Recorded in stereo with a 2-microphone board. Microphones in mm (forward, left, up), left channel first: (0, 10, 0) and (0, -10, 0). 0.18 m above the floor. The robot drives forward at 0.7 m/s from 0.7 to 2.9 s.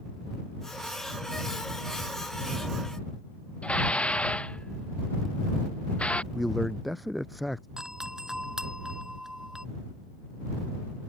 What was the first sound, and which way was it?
Dishes clattering, 75° left (ahead or behind).